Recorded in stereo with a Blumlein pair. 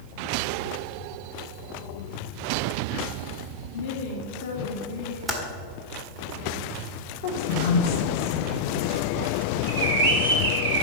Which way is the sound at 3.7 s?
65° left.